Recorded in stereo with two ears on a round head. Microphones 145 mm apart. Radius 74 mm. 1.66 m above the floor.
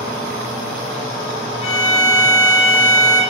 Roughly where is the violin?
Left.